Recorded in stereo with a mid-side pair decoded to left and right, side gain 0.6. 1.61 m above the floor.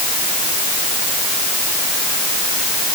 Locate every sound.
Only background noise.